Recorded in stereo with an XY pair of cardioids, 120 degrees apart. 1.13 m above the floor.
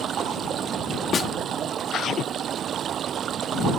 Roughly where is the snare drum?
Ahead left.